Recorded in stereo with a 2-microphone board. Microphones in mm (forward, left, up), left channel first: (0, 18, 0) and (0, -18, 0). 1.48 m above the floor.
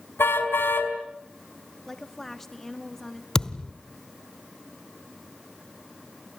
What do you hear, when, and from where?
0.2 s a car horn: 80° left, 5 m
1.9 s a woman speaking: 10° left (ahead or behind), 3 m
3.4 s a thud: 15° left (ahead or behind), 1.2 m